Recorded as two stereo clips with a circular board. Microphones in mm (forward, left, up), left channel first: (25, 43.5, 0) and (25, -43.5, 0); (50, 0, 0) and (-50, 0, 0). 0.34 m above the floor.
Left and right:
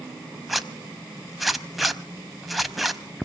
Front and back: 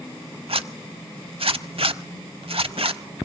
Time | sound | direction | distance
0.5 | a zipper | straight behind | 0.7 m